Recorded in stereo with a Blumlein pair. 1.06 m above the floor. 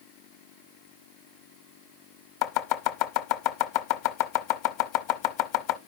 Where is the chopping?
45° left, 0.9 m.